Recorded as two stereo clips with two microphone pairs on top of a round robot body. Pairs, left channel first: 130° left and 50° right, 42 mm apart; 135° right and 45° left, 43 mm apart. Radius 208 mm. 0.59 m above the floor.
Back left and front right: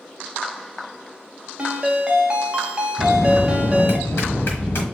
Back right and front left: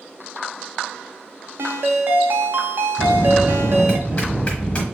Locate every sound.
1.6 s a ringtone: 15° left, 0.6 m
3.0 s a bell: 160° left, 0.8 m